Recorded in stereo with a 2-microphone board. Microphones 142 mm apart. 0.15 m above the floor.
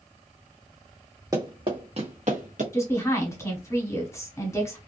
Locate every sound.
1.3 s running footsteps: 25° right (ahead or behind), 1.2 m; by 2.6 s 65° right (ahead or behind), 1.2 m
2.7 s a woman speaking: 20° left (ahead or behind), 1.2 m